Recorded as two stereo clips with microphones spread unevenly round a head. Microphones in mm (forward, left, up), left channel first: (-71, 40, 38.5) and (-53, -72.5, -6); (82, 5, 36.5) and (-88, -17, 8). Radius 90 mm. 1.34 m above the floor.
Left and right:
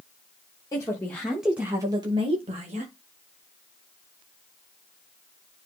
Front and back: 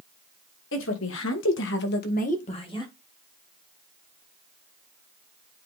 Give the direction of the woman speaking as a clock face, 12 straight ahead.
11 o'clock.